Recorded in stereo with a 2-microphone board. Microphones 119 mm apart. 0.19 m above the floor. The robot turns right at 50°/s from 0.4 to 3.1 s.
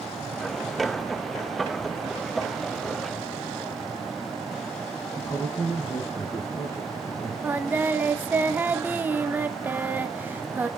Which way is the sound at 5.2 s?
25° left (ahead or behind).